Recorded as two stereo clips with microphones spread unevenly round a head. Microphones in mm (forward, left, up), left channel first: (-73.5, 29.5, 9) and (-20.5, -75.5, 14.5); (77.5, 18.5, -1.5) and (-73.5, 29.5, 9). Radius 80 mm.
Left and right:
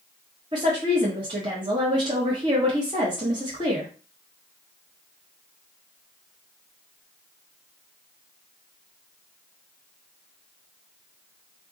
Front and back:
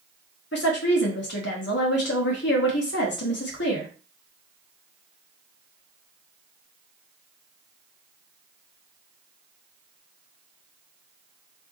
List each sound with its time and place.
0.5 s a woman speaking: straight ahead, 1.5 m